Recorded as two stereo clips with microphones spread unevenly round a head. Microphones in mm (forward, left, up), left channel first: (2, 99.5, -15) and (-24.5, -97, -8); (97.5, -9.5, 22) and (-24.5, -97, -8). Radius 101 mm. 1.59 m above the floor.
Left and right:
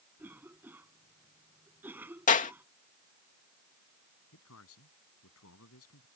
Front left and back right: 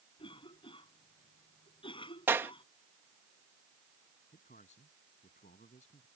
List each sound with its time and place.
0.2 s a cough: 15° right
2.3 s a clap: 135° left
4.3 s a man speaking: 90° left